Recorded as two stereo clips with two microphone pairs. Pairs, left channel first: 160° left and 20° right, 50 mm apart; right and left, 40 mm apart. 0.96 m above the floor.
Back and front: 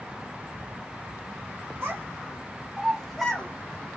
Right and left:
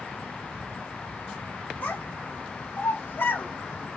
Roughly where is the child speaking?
Ahead right.